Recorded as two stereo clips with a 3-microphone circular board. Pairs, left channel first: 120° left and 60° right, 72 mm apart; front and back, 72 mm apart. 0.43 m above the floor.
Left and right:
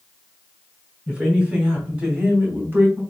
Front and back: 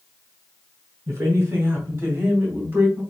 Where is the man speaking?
135° right, 2.5 m; by 3.0 s 110° right, 2 m.